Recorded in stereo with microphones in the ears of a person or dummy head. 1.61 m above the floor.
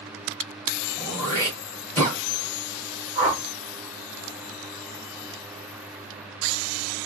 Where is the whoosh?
20° left (ahead or behind), 3.5 m.